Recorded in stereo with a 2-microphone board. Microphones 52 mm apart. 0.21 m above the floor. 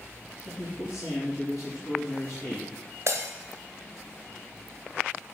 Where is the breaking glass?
55° right (ahead or behind), 1.4 m.